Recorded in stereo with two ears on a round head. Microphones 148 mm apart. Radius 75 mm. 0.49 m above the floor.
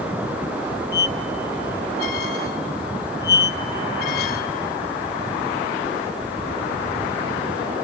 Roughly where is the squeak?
Left.